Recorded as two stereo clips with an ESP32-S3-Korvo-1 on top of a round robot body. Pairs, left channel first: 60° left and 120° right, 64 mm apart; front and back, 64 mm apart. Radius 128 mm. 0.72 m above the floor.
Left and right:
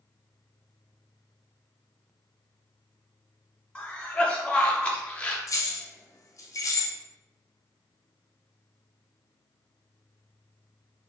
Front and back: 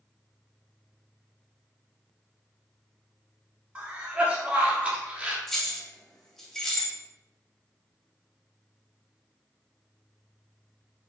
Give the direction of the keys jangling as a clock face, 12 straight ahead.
9 o'clock.